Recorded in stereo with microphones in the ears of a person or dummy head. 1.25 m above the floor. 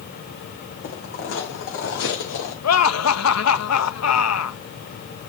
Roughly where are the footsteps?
Left.